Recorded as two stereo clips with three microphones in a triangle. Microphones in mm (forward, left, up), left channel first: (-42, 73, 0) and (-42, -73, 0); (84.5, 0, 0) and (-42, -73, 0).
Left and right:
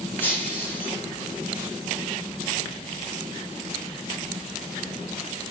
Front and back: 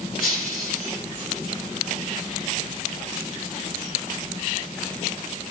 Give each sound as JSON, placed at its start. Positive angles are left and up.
{"t": 0.2, "sound": "breaking glass", "azimuth_deg": 15, "distance_m": 3.5}